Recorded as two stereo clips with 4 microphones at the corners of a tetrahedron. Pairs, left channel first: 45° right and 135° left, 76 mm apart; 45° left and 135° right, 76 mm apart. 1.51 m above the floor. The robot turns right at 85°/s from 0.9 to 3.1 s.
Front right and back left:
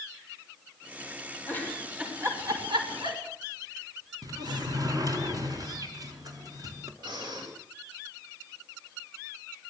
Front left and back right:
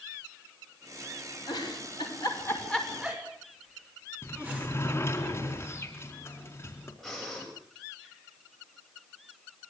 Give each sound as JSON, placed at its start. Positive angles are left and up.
{"t": 1.5, "sound": "a giggle", "azimuth_deg": 15, "distance_m": 6.5}
{"t": 4.2, "sound": "a sliding door", "azimuth_deg": 105, "distance_m": 4.0}
{"t": 7.0, "sound": "breathing", "azimuth_deg": 135, "distance_m": 10.0}